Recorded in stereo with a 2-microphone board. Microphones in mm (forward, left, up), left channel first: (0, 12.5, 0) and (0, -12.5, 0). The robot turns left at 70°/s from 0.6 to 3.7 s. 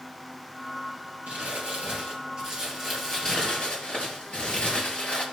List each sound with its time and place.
1.3 s crumpling: 60° right, 3.5 m; by 5.2 s 130° left, 3.5 m